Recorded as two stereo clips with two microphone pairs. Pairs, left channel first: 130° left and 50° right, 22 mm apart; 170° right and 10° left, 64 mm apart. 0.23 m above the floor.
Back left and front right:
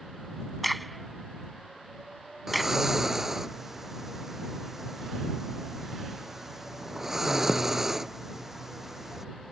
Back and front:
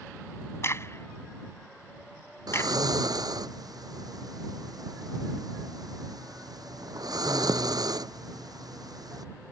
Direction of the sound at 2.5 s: 20° left.